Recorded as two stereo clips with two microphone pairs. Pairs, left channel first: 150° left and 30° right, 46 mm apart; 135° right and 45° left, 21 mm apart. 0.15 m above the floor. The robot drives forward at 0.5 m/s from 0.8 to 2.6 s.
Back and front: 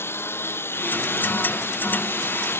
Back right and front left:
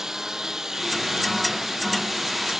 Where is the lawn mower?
110° left; by 2.6 s 115° left.